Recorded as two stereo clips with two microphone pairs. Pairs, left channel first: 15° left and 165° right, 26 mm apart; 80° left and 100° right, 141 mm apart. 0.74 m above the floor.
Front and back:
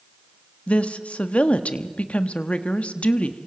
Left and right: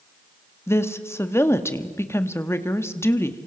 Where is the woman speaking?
10° left, 1.2 m.